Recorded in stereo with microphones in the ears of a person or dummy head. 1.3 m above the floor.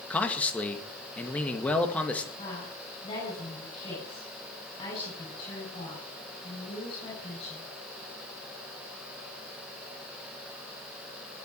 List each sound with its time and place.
0.1 s a man speaking: 5° left (ahead or behind), 1.9 m
2.4 s a woman speaking: 25° left (ahead or behind), 8 m